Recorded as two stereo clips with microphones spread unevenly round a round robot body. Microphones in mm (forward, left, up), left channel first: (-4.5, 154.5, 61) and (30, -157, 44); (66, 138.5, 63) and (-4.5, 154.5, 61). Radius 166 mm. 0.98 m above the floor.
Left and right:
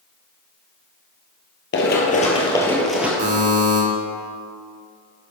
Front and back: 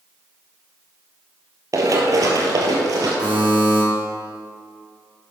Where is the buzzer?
145° right, 2.5 m.